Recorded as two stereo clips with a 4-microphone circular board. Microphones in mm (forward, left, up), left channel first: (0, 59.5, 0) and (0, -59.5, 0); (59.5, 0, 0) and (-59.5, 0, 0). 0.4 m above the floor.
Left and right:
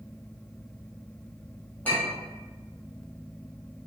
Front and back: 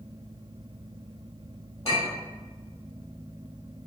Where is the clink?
15° left, 1.5 m.